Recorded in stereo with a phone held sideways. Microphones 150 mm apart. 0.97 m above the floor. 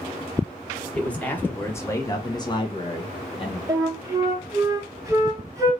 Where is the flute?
20° right (ahead or behind), 0.9 m.